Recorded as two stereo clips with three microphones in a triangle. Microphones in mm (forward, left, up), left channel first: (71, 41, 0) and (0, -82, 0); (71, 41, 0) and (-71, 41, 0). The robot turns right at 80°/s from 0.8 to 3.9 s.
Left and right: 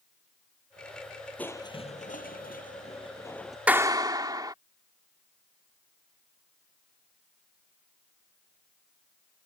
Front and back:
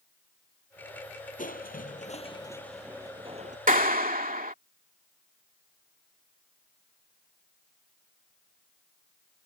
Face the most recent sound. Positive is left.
turn(degrees=180)